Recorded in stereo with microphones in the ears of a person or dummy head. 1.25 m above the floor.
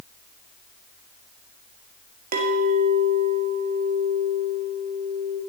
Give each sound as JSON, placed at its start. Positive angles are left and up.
{"t": 2.3, "sound": "a clink", "side_deg": -35, "distance_m": 1.1}